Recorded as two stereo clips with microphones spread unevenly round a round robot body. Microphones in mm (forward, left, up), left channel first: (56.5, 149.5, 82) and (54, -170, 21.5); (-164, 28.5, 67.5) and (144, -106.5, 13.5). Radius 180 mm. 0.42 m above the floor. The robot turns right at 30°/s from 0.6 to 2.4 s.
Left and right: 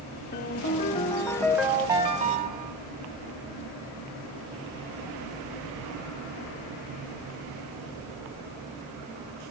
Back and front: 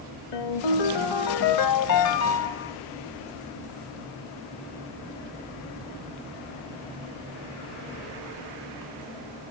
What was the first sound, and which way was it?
A ringtone, 155° left.